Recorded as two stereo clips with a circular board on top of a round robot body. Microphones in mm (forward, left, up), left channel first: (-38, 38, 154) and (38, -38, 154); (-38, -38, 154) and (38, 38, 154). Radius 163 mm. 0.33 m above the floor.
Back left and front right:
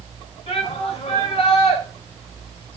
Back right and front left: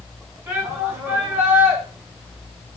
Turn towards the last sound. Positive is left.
turn(degrees=110)